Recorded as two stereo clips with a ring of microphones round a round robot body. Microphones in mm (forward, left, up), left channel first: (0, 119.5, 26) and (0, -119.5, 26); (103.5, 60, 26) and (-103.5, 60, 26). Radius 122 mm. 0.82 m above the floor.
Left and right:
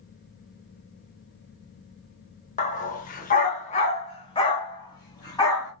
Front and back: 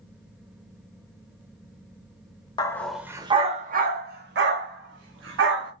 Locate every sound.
2.6 s a dog barking: 55° left, 0.6 m; by 5.7 s 165° left, 1.7 m